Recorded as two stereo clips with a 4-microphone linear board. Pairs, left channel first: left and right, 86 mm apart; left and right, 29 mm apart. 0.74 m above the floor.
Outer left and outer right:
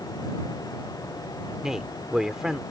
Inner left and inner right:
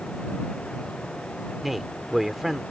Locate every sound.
1.6 s a man speaking: 5° right (ahead or behind)